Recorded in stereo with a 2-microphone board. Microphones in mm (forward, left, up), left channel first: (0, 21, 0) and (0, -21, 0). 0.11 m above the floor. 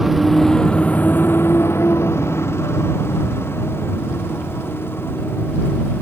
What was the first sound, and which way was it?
A motorcycle, 5° right (ahead or behind).